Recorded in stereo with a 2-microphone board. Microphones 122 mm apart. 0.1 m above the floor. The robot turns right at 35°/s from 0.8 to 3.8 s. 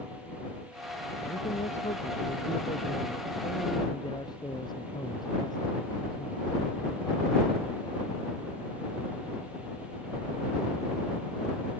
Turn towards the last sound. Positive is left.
turn(degrees=145)